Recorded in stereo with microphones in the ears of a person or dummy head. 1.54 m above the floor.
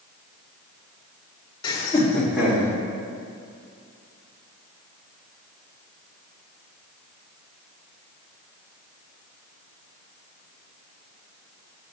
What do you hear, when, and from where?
1.6 s laughter: 25° left (ahead or behind), 1.8 m; by 2.7 s 10° right (ahead or behind), 2.5 m